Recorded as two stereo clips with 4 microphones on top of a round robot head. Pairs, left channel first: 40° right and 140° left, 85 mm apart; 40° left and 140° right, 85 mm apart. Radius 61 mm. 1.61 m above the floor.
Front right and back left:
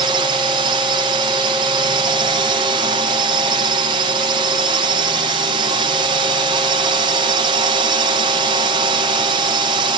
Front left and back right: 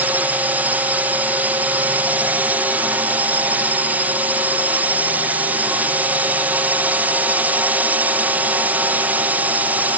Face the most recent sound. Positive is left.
turn(degrees=150)